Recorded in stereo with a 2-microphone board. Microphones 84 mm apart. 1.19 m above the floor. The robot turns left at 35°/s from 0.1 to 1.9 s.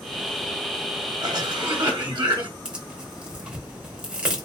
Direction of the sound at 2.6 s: 10° right (ahead or behind).